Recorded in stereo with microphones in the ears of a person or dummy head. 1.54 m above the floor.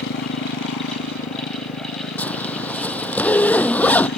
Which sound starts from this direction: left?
A motorcycle, at 0.0 s.